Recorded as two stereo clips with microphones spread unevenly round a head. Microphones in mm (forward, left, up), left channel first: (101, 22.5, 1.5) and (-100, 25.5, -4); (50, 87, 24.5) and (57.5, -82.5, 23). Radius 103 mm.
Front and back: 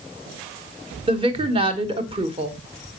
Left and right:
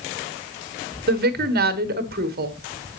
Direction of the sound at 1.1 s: 115° right.